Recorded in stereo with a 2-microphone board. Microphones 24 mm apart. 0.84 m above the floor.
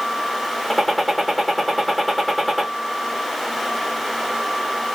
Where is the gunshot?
Centre (ahead or behind), 1.2 m.